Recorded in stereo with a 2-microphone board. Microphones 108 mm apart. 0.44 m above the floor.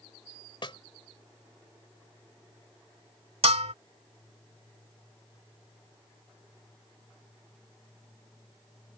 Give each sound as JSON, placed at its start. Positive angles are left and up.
{"t": 0.6, "sound": "a snare drum", "side_deg": 50}
{"t": 3.4, "sound": "a bell", "side_deg": -85}